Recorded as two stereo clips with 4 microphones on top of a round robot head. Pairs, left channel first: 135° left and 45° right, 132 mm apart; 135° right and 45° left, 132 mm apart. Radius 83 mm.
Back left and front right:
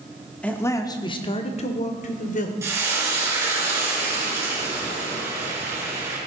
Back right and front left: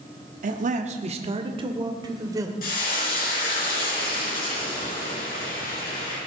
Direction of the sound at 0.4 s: 55° left.